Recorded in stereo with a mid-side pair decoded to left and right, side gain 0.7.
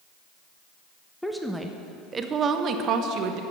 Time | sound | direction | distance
1.2 | a woman speaking | 5° left | 1.1 m